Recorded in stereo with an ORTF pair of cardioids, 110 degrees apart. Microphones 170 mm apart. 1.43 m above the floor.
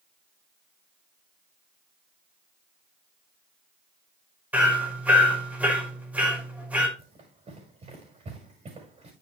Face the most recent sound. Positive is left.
turn(degrees=-40)